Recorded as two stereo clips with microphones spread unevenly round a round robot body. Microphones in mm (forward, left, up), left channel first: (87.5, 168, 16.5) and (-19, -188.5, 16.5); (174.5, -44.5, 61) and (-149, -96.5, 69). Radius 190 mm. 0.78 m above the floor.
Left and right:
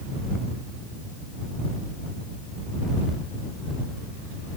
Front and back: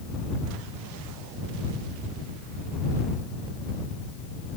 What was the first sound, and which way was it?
Only background noise.